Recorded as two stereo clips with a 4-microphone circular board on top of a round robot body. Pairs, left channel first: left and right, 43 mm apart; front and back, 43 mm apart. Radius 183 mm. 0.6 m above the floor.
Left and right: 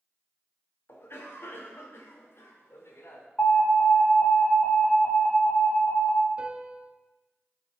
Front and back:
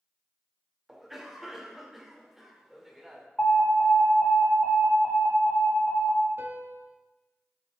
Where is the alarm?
55° left, 5 m.